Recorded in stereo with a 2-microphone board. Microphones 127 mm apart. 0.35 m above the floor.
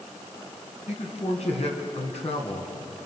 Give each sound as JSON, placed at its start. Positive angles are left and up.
{"t": 0.9, "sound": "a man speaking", "side_deg": 60, "distance_m": 4.0}